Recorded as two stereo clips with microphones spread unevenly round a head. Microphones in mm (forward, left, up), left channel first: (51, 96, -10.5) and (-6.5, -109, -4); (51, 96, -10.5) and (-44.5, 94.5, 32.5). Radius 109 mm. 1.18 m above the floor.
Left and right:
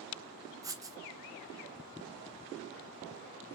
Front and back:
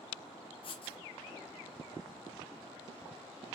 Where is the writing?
30° right, 0.9 m.